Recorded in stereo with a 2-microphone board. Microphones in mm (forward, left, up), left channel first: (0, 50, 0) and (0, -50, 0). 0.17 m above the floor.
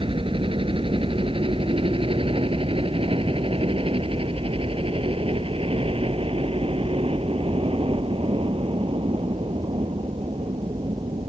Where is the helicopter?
60° right (ahead or behind); by 11.3 s 65° right (ahead or behind).